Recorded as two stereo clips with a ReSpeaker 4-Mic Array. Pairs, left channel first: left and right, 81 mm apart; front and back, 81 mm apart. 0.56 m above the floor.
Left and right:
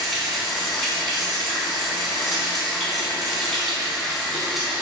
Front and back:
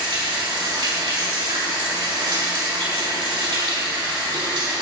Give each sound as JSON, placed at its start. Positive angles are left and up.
{"t": 0.0, "sound": "running water", "azimuth_deg": 180, "distance_m": 4.5}